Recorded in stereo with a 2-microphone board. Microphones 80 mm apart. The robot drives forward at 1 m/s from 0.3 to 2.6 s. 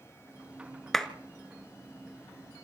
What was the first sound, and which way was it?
A clap, 5° left (ahead or behind).